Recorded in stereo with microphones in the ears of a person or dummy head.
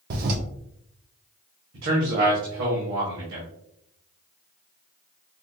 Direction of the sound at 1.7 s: 75° right (ahead or behind).